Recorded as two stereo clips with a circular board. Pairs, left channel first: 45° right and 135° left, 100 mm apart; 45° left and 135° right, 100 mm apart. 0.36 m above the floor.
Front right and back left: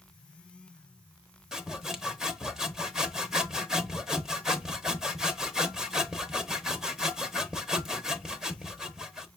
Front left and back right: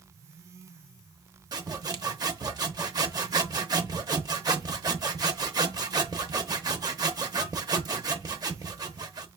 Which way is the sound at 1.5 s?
145° right.